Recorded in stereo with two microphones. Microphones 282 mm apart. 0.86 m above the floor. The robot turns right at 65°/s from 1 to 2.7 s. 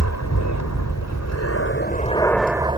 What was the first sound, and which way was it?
An aircraft, 85° left.